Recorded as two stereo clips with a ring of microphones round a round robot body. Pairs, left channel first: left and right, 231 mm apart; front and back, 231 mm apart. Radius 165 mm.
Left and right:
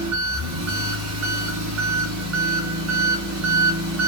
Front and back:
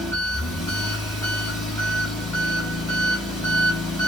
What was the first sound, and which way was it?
An engine running, 80° right.